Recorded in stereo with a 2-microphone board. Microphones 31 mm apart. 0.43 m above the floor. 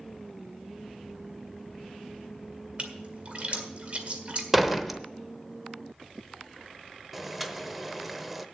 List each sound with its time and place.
2.8 s a splash: 40° right (ahead or behind), 1.7 m
4.5 s a door slam: 5° right (ahead or behind), 0.8 m
7.1 s boiling: 5° right (ahead or behind), 0.8 m